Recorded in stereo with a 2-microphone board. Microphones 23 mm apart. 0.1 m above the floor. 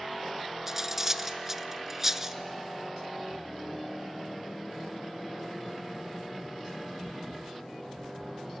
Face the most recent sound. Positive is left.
turn(degrees=-15)  # may be behind; listen again after turning